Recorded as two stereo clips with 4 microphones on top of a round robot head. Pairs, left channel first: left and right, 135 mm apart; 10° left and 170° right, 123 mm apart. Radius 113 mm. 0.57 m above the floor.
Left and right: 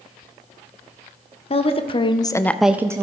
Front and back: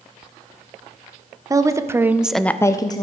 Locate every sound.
1.5 s a woman speaking: 130° left, 1.2 m; by 3.0 s 30° right, 0.8 m